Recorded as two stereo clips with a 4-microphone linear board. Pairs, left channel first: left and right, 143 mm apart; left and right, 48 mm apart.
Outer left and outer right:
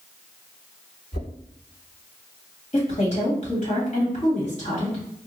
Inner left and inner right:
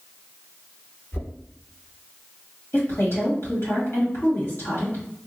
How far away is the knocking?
About 2.0 m.